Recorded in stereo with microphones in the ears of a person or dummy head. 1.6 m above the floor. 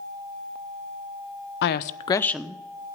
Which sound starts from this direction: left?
A woman speaking, at 1.6 s.